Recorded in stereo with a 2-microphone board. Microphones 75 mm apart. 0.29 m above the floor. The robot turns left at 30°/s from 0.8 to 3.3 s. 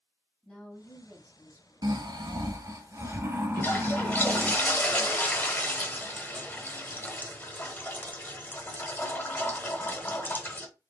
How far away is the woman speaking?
About 1.6 m.